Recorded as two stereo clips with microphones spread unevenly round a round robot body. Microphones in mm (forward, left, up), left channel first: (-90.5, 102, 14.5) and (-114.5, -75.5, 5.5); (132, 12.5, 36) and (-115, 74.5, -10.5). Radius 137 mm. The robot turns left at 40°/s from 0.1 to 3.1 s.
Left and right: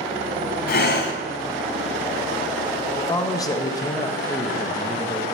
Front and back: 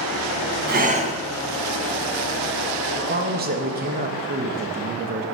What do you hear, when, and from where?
0.7 s breathing: 110° left, 1.5 m; by 1.1 s 90° left, 1.5 m
3.0 s a man speaking: 155° left, 1.1 m; by 5.2 s 150° left, 1.1 m